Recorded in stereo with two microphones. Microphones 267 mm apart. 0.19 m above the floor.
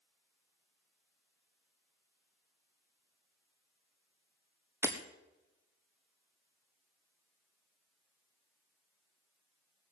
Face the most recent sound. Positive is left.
turn(degrees=-10)  # may be behind; listen again after turning